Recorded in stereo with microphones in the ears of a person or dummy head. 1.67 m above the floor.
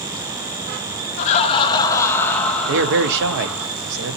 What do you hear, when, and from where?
1.2 s laughter: 45° left (ahead or behind), 0.7 m; by 3.7 s 5° right (ahead or behind), 1.7 m
2.7 s a man speaking: 70° right (ahead or behind), 0.7 m